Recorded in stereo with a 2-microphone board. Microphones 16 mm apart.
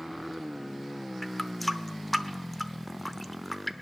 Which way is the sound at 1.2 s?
10° left (ahead or behind).